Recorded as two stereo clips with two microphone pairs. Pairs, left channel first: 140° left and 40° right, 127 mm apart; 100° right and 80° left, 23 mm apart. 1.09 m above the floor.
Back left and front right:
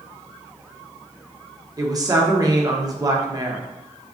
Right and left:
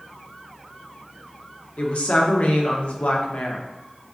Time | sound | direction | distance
1.8 | a woman speaking | 95° right | 0.7 m